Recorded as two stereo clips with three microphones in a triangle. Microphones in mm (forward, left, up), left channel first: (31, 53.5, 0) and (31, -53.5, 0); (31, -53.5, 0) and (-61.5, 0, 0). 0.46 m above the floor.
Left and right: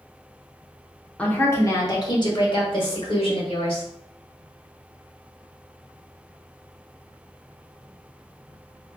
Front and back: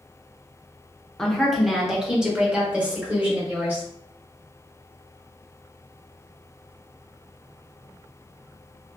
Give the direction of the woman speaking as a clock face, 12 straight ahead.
11 o'clock.